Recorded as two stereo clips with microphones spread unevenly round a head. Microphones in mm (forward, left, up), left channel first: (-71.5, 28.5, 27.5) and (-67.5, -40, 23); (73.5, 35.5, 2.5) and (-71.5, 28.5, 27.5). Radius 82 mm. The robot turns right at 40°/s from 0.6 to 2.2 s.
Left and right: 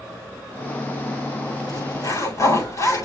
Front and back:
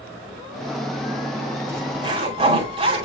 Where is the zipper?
110° left, 8 m; by 3.0 s 130° left, 8 m.